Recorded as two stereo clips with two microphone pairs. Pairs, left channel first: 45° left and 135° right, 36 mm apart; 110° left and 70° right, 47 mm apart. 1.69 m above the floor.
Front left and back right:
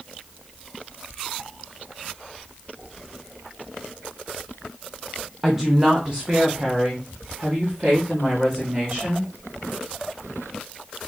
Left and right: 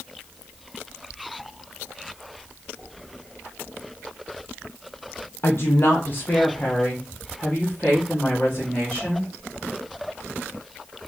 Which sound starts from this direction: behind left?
A woman speaking, at 5.4 s.